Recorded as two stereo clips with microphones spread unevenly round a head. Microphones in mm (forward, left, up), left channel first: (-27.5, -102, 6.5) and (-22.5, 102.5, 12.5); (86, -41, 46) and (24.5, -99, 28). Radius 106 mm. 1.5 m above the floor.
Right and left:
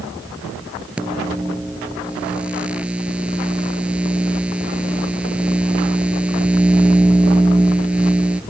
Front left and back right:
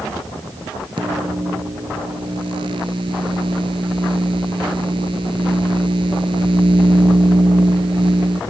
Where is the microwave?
175° left.